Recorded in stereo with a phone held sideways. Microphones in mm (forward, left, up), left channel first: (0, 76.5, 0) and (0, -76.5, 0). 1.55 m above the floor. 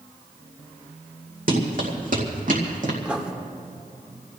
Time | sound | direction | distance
1.5 | running footsteps | 65° right (ahead or behind) | 3.5 m
3.0 | writing | 10° right (ahead or behind) | 1.3 m